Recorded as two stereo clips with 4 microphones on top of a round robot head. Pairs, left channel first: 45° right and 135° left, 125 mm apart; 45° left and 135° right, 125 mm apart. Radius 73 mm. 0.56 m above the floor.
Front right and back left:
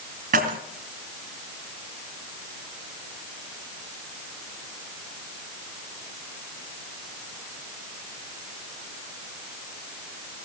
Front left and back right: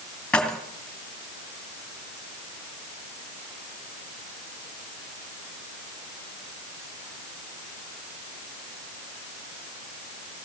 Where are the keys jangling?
130° left, 2.5 m.